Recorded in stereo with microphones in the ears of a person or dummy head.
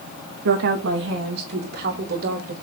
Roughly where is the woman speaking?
Right.